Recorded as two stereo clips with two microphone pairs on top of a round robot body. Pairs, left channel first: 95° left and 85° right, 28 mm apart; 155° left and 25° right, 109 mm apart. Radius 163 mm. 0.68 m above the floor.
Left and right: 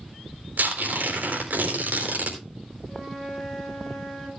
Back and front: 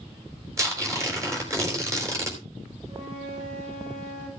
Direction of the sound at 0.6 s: 85° right.